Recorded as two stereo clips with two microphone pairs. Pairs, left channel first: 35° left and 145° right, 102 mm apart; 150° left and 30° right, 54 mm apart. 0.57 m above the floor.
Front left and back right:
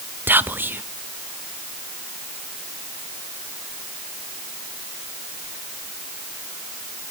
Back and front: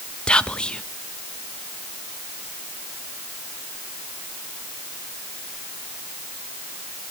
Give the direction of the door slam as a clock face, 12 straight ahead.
No door slam in this recording.